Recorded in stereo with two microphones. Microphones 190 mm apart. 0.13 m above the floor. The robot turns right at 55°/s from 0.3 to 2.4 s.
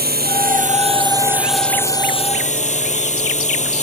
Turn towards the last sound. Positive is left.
turn(degrees=45)